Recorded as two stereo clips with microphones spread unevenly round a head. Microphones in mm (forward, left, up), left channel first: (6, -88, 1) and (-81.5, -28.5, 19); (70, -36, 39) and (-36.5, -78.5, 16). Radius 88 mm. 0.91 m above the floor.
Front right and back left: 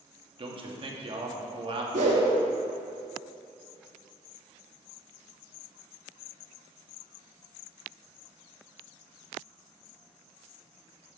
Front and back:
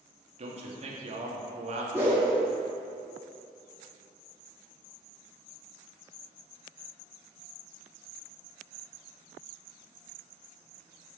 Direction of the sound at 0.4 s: 175° right.